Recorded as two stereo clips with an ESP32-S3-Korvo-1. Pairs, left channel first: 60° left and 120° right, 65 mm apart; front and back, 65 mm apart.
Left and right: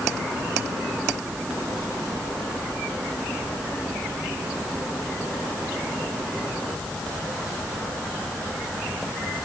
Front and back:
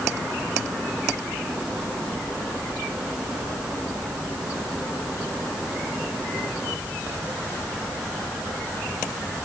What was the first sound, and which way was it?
Only background noise.